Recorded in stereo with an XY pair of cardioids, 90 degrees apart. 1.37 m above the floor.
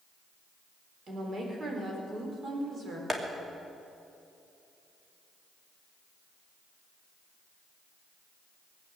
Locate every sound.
1.1 s a woman speaking: 45° right, 4.5 m
3.1 s tapping: 20° right, 2.5 m